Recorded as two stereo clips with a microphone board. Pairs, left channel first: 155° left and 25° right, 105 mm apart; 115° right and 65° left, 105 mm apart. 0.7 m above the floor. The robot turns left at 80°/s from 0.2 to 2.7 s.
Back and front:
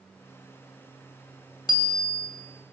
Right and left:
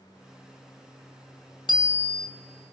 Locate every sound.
1.7 s a bicycle bell: 155° right, 2.5 m; by 2.3 s 155° left, 2.5 m